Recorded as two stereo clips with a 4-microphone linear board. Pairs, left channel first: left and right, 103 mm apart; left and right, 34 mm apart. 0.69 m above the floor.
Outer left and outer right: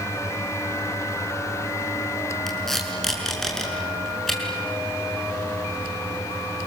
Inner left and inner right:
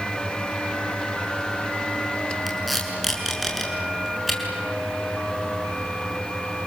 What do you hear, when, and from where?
2.5 s tape being pulled: 5° left (ahead or behind), 5.5 m